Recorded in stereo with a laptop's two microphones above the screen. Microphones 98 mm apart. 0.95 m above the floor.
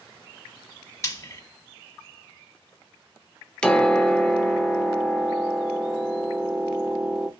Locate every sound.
1.0 s frying: 30° left (ahead or behind), 0.9 m
3.6 s a piano: 10° left (ahead or behind), 0.5 m